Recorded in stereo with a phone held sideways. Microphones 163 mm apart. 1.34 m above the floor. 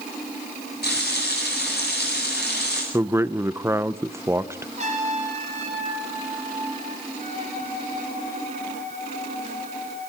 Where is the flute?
55° right (ahead or behind), 6.5 m.